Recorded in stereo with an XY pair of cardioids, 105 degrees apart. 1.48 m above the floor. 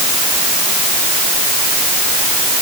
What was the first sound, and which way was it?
Only background noise.